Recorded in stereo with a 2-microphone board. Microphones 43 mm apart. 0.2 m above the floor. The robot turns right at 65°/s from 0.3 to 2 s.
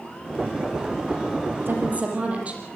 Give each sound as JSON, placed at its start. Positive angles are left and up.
{"t": 1.6, "sound": "a woman speaking", "side_deg": -55, "distance_m": 6.0}